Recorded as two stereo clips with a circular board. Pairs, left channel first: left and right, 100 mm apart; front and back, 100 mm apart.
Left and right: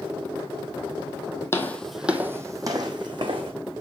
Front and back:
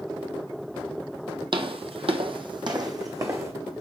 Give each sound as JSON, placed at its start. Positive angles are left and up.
{"t": 1.5, "sound": "footsteps", "azimuth_deg": 155, "distance_m": 0.6}